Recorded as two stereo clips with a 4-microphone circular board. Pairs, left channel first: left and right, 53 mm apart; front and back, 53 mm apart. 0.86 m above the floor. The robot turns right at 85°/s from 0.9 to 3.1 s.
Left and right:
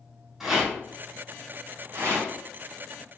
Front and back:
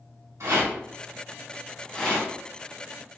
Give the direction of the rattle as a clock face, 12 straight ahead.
6 o'clock.